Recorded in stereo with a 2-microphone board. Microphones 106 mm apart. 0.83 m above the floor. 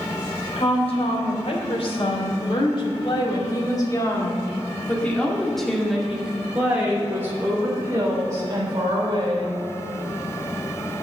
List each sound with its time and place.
0.6 s a woman speaking: 70° left (ahead or behind), 3.5 m; by 9.6 s 40° right (ahead or behind), 3.5 m